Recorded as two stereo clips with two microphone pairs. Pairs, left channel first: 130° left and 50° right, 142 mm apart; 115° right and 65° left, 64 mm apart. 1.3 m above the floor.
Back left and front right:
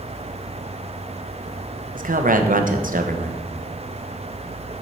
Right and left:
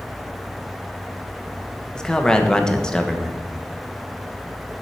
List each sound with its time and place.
1.9 s a man speaking: 35° right, 1.0 m